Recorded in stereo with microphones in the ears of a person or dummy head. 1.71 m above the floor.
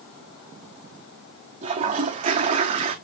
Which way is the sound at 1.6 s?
25° right (ahead or behind).